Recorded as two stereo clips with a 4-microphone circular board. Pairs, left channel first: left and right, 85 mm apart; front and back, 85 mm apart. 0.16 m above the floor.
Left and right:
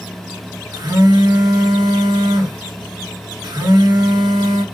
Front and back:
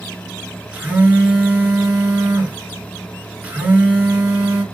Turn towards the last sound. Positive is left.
turn(degrees=-110)